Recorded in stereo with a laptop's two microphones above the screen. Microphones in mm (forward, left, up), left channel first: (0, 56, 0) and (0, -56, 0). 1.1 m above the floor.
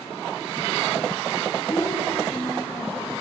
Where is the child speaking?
25° left (ahead or behind), 6 m; by 3.1 s 15° left (ahead or behind), 7 m.